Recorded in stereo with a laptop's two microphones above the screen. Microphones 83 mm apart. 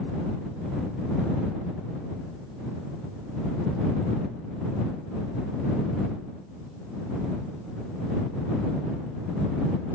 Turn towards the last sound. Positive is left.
No sound to turn to.